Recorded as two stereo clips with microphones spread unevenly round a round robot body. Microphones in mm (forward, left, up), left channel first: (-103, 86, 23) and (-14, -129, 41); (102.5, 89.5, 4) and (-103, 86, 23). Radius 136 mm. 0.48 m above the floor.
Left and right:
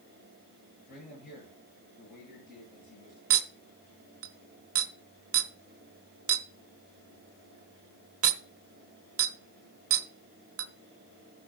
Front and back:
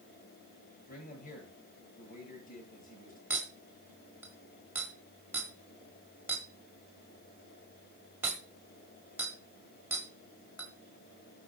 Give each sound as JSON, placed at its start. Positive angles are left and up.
{"t": 0.9, "sound": "a man speaking", "azimuth_deg": 50, "distance_m": 9.5}
{"t": 3.3, "sound": "a clink", "azimuth_deg": -95, "distance_m": 1.2}